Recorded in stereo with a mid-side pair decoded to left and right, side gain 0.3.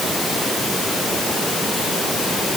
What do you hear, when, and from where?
Only background noise.